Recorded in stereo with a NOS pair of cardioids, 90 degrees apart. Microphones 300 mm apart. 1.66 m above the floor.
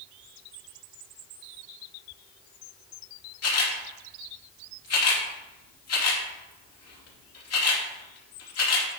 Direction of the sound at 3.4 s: 55° left.